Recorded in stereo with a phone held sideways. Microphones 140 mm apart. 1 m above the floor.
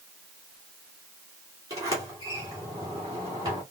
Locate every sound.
1.7 s a sliding door: 25° right (ahead or behind), 2.5 m